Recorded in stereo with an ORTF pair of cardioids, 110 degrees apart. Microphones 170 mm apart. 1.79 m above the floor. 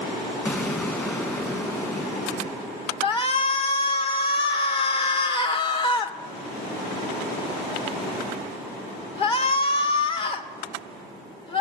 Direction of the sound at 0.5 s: 15° left.